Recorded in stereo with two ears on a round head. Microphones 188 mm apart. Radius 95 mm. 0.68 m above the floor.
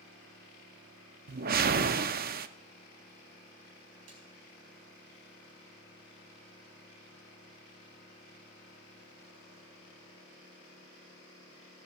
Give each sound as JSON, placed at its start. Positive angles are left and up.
{"t": 1.3, "sound": "a whoosh", "side_deg": -40, "distance_m": 0.5}
{"t": 4.1, "sound": "a snare drum", "side_deg": -75, "distance_m": 4.5}